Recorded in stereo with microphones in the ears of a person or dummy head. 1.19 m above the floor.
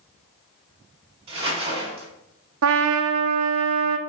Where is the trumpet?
60° right (ahead or behind), 0.6 m.